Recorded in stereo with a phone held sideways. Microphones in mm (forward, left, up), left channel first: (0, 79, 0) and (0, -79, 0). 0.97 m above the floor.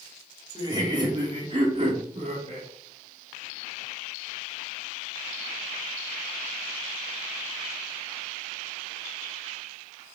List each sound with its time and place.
0.6 s laughter: 25° right (ahead or behind), 2.5 m; by 2.7 s 50° right (ahead or behind), 2.5 m